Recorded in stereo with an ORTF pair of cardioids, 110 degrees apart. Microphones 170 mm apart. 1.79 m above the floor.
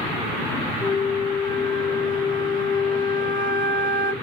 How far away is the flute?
About 1.0 m.